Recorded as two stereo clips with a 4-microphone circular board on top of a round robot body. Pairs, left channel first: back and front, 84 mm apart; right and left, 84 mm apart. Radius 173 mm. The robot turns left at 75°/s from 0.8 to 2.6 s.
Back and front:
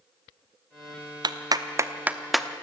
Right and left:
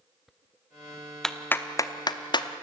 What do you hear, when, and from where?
1.2 s a clap: 5° right, 1.2 m; by 2.5 s 100° right, 1.2 m